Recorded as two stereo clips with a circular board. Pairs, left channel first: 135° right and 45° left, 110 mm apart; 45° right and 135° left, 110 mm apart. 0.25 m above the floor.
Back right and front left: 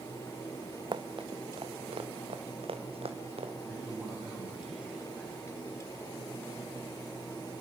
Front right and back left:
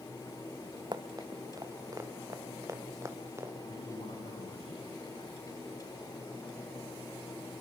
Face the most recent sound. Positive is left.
turn(degrees=-40)